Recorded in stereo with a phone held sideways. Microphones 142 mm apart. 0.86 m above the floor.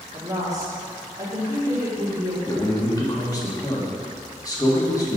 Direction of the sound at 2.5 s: 25° left (ahead or behind).